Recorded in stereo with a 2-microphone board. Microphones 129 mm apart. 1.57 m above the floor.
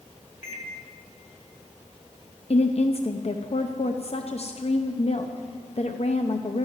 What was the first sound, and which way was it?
A microwave, 70° left (ahead or behind).